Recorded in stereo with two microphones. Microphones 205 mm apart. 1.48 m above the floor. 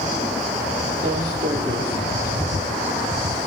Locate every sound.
1.0 s footsteps: 55° right (ahead or behind), 3.5 m; by 3.5 s 25° right (ahead or behind), 1.6 m